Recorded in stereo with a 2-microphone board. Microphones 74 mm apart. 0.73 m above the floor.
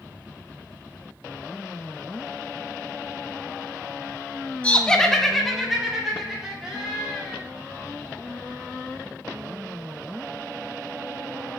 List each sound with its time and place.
4.6 s laughter: 15° left (ahead or behind), 0.8 m; by 7.4 s 5° right (ahead or behind), 4 m